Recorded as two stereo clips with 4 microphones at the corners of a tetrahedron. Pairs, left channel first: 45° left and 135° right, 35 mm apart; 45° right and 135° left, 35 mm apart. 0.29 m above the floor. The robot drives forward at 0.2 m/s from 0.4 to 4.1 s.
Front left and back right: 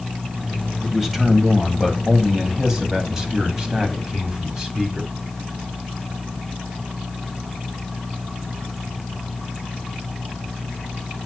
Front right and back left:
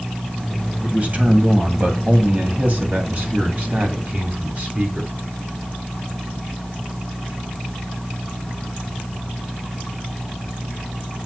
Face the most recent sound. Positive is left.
turn(degrees=155)